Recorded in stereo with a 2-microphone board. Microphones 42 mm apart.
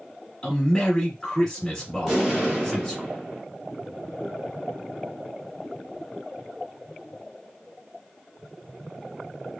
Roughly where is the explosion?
Centre.